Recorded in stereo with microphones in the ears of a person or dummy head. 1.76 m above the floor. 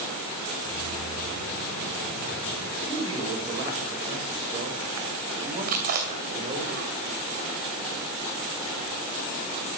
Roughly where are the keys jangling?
Right.